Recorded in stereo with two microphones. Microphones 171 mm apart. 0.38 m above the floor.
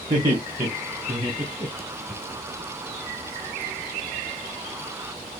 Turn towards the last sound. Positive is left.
turn(degrees=-15)  # may be behind; listen again after turning